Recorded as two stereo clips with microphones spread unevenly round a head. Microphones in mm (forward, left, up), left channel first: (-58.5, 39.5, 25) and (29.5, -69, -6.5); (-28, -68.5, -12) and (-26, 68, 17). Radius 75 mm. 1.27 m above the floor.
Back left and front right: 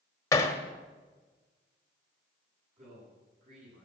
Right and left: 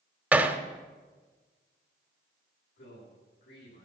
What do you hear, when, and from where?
0.3 s hammering: 140° left, 1.2 m
2.8 s a man speaking: 90° right, 9.5 m